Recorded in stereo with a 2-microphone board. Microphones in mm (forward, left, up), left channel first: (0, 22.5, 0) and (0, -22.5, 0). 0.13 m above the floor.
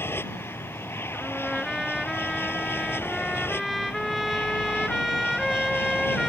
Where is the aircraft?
60° left (ahead or behind).